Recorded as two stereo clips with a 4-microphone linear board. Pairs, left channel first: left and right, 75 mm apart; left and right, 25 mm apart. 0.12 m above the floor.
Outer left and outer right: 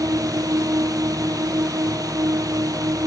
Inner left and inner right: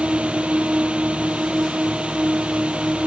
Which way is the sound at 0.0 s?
55° right (ahead or behind).